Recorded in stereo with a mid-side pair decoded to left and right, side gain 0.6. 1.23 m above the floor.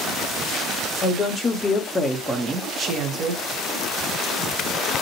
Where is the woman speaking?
35° left, 1.0 m; by 3.4 s 50° right, 1.0 m.